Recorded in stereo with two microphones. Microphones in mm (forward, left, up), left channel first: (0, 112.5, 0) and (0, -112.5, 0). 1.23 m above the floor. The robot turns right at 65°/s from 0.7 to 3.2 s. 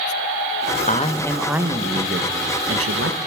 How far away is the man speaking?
About 1.1 m.